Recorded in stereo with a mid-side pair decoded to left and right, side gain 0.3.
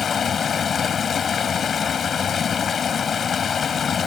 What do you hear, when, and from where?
0.0 s running water: 65° left